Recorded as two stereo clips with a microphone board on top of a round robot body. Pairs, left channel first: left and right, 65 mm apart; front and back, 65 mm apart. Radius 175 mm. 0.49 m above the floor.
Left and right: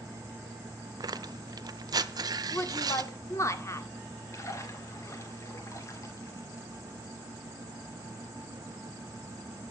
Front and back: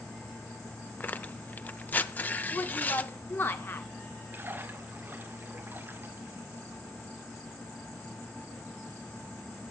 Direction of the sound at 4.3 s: 125° left.